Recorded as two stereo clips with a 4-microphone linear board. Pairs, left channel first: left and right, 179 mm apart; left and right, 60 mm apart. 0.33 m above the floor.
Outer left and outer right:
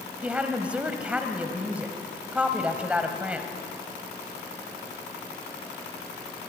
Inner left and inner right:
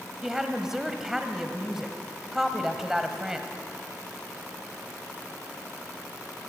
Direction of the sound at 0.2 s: 5° right (ahead or behind).